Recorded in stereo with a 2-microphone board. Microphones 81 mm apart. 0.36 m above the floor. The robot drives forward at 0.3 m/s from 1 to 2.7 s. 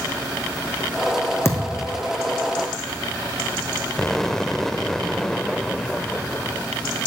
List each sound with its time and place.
1.4 s a thud: 30° left (ahead or behind), 3 m
4.0 s an explosion: 5° left (ahead or behind), 0.7 m